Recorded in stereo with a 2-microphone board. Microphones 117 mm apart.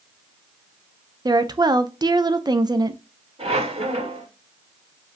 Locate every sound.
1.2 s a woman speaking: 35° right (ahead or behind), 0.6 m
3.4 s a squeak: 60° right (ahead or behind), 1.9 m